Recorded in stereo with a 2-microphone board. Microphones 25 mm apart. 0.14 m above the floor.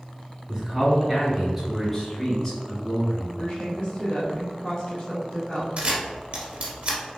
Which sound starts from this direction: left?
A woman speaking, at 3.4 s.